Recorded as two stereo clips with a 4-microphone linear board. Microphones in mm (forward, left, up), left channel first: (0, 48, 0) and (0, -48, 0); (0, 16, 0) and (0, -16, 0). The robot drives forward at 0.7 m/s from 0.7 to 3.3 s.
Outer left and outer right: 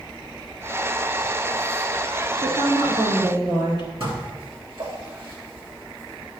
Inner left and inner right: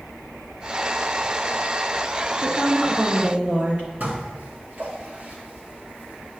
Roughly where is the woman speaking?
Right.